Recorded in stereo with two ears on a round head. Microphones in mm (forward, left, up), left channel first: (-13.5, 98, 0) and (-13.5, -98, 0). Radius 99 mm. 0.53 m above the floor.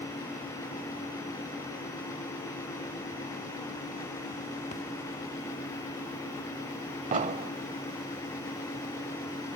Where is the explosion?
35° right (ahead or behind), 0.8 m.